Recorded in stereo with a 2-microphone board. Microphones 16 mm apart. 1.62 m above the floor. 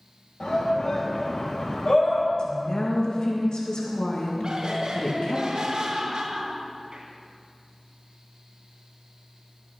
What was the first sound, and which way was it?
A shout, 65° left (ahead or behind).